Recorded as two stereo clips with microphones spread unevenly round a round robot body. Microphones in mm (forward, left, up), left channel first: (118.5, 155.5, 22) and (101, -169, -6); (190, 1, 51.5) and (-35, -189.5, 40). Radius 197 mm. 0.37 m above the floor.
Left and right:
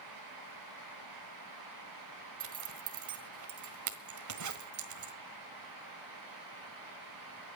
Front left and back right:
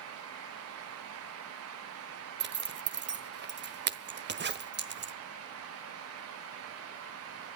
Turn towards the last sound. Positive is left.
turn(degrees=-95)